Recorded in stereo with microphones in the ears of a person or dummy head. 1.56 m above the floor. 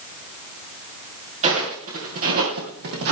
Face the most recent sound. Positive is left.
turn(degrees=-50)  # may be behind; listen again after turning